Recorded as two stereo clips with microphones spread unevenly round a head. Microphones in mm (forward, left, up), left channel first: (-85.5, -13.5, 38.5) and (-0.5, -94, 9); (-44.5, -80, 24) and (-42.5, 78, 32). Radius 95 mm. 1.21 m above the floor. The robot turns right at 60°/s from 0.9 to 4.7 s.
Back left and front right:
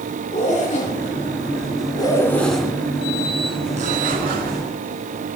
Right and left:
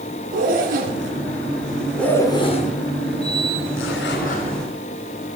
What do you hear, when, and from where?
0.3 s a zipper: 120° left, 2.5 m; by 4.7 s 15° right, 2.5 m